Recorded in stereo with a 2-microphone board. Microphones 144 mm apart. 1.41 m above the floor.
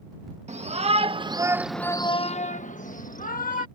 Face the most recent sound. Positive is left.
turn(degrees=80)